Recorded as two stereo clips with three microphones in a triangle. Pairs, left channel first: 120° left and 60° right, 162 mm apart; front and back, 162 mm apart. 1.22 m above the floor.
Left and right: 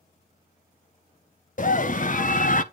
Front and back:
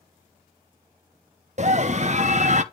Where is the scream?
145° left, 0.8 m.